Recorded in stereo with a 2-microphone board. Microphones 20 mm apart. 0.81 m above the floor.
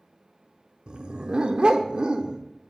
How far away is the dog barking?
About 0.6 m.